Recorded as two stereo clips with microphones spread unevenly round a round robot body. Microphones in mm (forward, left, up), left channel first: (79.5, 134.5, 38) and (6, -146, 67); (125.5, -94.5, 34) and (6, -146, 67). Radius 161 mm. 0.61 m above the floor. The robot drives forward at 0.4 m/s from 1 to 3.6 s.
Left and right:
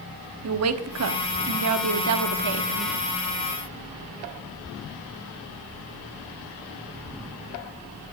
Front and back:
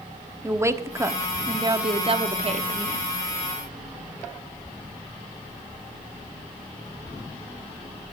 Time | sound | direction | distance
0.4 | a woman speaking | 80° right | 1.2 m